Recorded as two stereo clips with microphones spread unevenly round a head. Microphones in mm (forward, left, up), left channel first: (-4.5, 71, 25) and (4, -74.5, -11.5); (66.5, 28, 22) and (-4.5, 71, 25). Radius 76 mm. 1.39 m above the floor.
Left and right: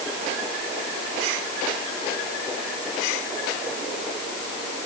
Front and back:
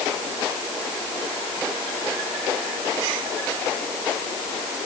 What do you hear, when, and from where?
Only background noise.